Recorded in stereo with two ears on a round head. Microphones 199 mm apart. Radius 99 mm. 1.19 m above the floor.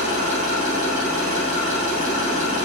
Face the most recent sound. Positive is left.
turn(degrees=-40)  # may be behind; listen again after turning